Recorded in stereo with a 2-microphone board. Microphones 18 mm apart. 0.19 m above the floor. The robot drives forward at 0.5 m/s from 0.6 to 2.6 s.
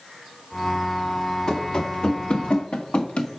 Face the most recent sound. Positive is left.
turn(degrees=75)  # may be behind; listen again after turning